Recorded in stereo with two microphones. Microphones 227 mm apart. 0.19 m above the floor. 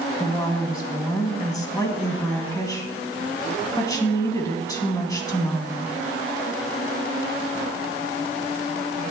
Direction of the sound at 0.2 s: 15° left (ahead or behind).